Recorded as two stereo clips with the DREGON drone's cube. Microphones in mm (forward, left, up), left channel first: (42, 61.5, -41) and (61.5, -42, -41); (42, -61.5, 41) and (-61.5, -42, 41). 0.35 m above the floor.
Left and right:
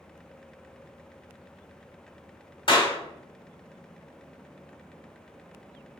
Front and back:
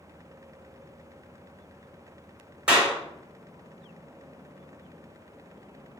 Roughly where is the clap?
Left.